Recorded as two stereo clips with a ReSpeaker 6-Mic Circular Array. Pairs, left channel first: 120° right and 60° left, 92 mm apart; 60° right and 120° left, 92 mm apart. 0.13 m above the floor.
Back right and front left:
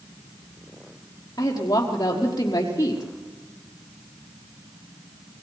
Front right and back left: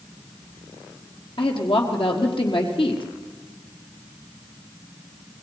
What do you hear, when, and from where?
1.4 s a woman speaking: 70° right, 5 m